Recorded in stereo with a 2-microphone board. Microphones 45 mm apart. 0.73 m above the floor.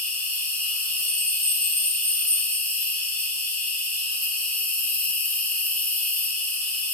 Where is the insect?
40° left (ahead or behind), 1.2 m.